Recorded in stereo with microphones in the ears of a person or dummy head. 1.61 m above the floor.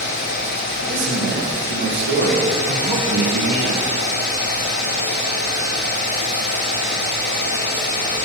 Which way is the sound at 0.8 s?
65° right (ahead or behind).